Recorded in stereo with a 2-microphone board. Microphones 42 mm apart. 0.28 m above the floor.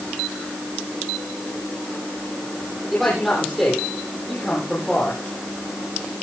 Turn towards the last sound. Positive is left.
turn(degrees=5)  # may be behind; listen again after turning